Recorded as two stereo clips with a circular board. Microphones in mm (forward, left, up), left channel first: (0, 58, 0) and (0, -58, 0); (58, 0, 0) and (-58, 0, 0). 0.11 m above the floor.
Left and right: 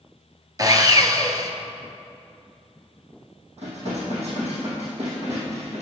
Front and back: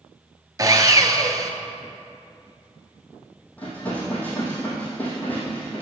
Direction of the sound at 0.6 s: 135° right.